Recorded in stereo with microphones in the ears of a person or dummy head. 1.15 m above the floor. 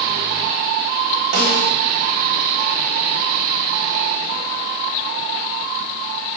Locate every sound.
1.3 s a snare drum: 60° right (ahead or behind), 1.5 m